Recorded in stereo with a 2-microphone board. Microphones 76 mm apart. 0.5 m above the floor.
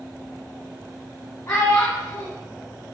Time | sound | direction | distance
1.5 | a child speaking | 30° left (ahead or behind) | 2 m